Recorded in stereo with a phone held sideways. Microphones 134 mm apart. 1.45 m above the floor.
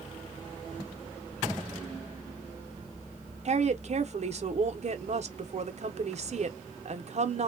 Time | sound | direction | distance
3.5 | a woman speaking | 50° right (ahead or behind) | 0.7 m